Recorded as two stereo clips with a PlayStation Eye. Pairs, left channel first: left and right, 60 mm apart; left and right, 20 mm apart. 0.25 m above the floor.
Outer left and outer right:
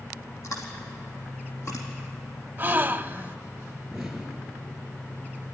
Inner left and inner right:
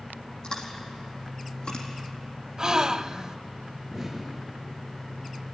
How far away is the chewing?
About 4 m.